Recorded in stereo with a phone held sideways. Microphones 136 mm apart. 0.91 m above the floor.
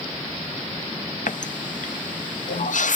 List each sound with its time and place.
1.3 s a running tap: 70° left (ahead or behind), 0.6 m